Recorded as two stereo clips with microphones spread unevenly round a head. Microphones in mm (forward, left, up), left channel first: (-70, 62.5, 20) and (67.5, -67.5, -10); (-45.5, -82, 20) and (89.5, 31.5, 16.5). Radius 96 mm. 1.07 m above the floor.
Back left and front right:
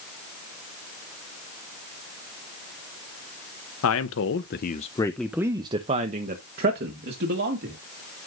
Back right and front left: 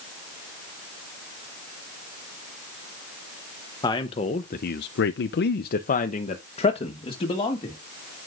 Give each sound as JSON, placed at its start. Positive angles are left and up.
{"t": 3.8, "sound": "a man speaking", "azimuth_deg": 150, "distance_m": 0.9}